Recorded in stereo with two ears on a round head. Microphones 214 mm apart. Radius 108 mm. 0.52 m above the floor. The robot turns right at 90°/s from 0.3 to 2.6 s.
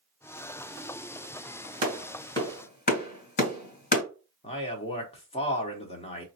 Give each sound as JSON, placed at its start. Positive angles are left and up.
{"t": 1.8, "sound": "a clap", "side_deg": -30, "distance_m": 2.5}
{"t": 4.4, "sound": "a man speaking", "side_deg": 25, "distance_m": 1.0}